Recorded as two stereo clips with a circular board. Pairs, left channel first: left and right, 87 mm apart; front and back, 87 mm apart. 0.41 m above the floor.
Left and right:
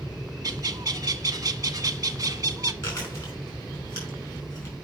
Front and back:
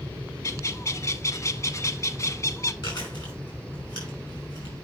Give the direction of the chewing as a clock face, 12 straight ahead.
11 o'clock.